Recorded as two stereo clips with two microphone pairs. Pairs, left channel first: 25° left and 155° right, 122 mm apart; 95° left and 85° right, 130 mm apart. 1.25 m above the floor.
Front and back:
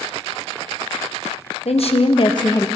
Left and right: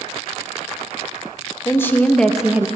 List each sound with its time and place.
1.6 s a woman speaking: 30° left, 1.0 m; by 2.7 s 30° right, 0.5 m